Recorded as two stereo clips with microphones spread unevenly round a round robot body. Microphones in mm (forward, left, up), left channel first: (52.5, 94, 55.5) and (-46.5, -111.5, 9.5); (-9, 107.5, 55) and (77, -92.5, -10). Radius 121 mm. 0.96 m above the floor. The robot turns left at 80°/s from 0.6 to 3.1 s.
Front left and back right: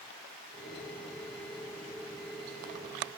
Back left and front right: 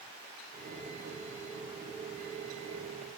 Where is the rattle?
I don't hear a rattle.